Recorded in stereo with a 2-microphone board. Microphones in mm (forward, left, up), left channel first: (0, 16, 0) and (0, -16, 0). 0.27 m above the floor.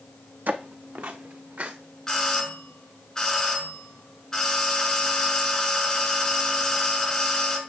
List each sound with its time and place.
0.5 s footsteps: 65° right (ahead or behind), 0.7 m
2.1 s a doorbell: 15° left (ahead or behind), 1.9 m